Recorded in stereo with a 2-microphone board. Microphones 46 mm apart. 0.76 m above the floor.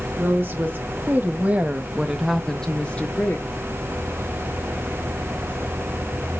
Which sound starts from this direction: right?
A woman speaking, at 0.2 s.